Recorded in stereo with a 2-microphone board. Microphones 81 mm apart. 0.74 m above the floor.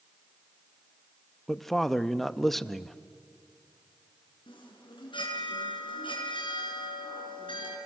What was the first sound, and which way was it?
A man speaking, centre (ahead or behind).